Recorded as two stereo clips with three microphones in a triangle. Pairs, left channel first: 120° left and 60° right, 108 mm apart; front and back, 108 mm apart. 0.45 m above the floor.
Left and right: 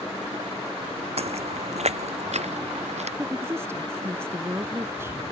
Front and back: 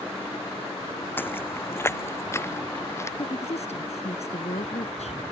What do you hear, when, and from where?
1.2 s footsteps: 70° right; by 3.1 s 65° right
3.2 s a woman speaking: 5° left